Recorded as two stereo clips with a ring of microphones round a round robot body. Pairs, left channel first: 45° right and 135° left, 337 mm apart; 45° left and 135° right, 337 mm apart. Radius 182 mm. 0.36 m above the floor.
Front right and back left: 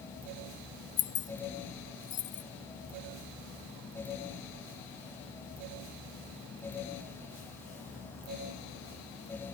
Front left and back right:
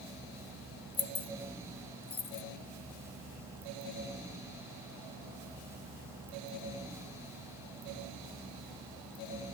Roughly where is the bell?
No bell in this recording.